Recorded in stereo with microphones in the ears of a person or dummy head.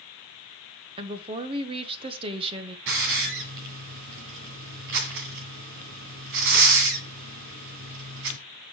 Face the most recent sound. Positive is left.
turn(degrees=-60)  # may be behind; listen again after turning